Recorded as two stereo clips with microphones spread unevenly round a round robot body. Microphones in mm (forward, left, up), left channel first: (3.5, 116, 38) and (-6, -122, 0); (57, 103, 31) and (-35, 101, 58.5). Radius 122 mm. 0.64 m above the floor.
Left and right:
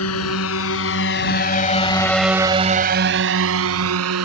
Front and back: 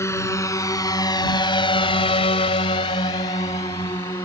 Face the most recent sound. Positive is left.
turn(degrees=-70)